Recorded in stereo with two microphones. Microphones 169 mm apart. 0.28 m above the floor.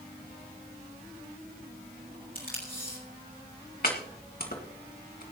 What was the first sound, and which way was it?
Tape being pulled, 55° left (ahead or behind).